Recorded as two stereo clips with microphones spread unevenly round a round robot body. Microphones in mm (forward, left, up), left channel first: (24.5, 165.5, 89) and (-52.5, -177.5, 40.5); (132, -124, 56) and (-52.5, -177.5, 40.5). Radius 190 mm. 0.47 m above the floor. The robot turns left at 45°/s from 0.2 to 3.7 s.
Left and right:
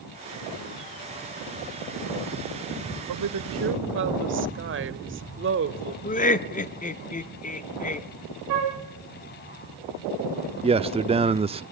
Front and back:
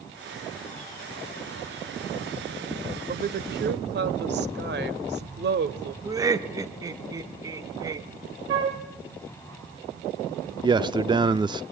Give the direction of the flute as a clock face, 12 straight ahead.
5 o'clock.